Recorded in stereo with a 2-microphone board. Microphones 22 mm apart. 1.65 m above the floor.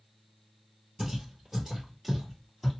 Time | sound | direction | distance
1.0 | footsteps | 20° right (ahead or behind) | 1.7 m